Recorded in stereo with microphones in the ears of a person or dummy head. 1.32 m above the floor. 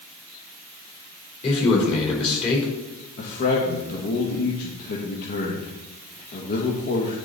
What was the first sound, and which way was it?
A man speaking, 35° left (ahead or behind).